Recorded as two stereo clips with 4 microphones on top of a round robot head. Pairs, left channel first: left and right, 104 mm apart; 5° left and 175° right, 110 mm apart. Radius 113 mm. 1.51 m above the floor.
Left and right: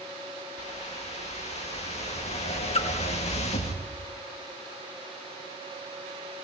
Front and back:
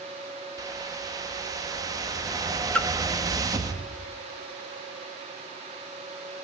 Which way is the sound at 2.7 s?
80° left.